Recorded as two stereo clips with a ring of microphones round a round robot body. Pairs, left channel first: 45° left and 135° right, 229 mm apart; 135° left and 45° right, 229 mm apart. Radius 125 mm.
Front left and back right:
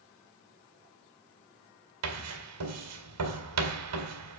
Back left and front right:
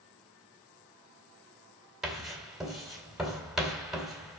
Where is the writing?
135° right, 3 m.